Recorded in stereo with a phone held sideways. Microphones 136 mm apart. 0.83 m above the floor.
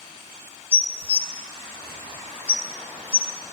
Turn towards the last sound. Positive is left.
turn(degrees=45)  # may be behind; listen again after turning